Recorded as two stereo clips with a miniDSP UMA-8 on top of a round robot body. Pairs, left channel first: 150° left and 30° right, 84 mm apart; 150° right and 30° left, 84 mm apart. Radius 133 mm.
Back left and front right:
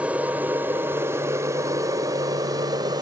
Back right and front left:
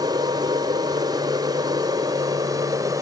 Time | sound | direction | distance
0.0 | an aircraft | 40° left | ?